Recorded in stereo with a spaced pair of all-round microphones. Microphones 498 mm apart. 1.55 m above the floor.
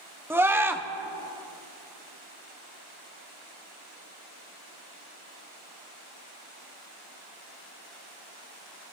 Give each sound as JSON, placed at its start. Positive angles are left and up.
{"t": 0.3, "sound": "a scream", "side_deg": -5, "distance_m": 1.1}